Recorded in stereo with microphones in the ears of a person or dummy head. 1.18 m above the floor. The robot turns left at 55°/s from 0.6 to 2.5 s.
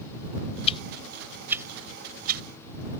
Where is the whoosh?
35° left (ahead or behind); by 2.4 s 55° right (ahead or behind).